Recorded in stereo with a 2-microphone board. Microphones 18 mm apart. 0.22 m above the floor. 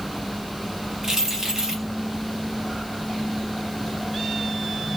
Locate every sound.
1.0 s keys jangling: 30° right (ahead or behind), 1.9 m